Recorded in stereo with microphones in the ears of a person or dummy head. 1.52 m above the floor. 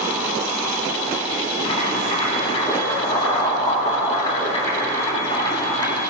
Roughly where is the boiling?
Left.